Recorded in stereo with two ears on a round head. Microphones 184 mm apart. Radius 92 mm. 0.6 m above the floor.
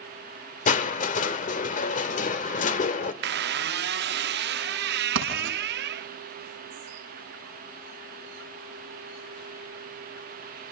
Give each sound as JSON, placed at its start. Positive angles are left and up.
{"t": 0.7, "sound": "crushing", "side_deg": 40, "distance_m": 1.5}
{"t": 3.2, "sound": "a squeak", "side_deg": -55, "distance_m": 0.6}
{"t": 5.2, "sound": "writing", "side_deg": -65, "distance_m": 6.5}